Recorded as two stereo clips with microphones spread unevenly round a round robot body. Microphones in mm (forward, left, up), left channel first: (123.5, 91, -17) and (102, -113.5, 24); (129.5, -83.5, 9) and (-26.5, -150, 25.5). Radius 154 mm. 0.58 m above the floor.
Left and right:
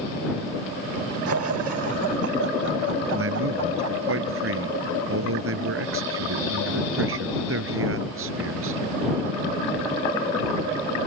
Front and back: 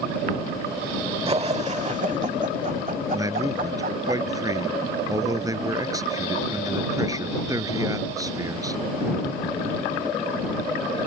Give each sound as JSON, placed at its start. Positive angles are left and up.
{"t": 1.3, "sound": "laughter", "azimuth_deg": -100}
{"t": 3.1, "sound": "a man speaking", "azimuth_deg": -90}